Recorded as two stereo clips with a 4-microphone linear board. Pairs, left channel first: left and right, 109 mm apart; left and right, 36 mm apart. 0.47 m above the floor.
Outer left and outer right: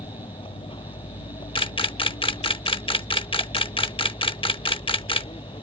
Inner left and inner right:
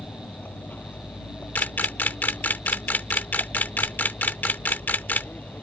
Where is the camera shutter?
50° left (ahead or behind).